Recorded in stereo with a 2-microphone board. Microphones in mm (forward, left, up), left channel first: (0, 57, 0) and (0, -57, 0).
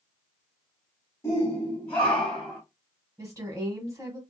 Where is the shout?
25° left (ahead or behind), 1.4 m; by 2.6 s centre (ahead or behind), 1.5 m.